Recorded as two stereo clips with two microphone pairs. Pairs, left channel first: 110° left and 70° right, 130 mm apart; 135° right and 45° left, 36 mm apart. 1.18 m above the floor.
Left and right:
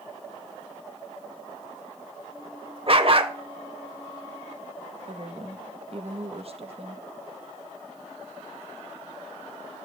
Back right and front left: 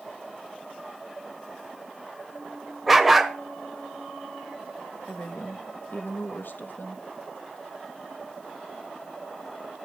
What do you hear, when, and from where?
2.9 s a dog barking: 40° right, 1.3 m
5.1 s a woman speaking: 110° right, 1.7 m